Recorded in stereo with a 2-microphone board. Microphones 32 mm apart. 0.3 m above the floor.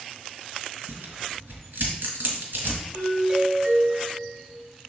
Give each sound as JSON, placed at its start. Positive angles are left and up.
{"t": 0.9, "sound": "tearing paper", "side_deg": -75, "distance_m": 1.8}
{"t": 2.9, "sound": "a doorbell", "side_deg": -30, "distance_m": 1.5}